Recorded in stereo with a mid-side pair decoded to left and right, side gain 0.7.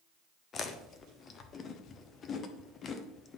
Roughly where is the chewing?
Ahead left.